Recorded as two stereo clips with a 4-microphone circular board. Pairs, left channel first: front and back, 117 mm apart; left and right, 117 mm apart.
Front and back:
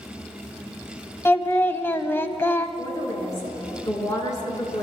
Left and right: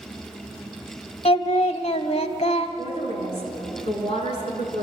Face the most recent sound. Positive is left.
turn(degrees=60)